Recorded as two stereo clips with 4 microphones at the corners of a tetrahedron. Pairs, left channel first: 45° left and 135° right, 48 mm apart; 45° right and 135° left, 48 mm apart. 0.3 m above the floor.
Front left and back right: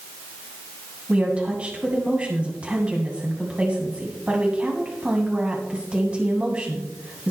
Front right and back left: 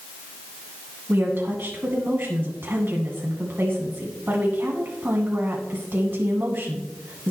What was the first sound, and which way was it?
A woman speaking, 165° left.